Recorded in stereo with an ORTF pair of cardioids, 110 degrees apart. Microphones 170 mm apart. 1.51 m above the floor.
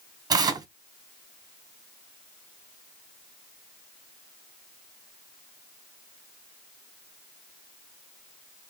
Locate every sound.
0.3 s tearing paper: 25° right, 0.8 m